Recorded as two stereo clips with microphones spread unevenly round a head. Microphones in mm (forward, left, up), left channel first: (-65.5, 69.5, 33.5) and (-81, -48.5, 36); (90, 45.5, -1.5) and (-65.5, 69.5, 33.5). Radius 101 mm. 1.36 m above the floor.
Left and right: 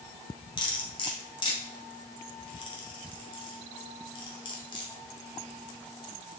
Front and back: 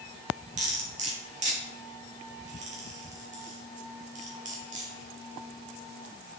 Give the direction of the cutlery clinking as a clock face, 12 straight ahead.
8 o'clock.